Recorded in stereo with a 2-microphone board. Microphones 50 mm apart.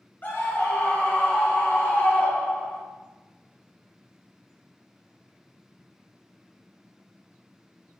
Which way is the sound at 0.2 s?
40° left (ahead or behind).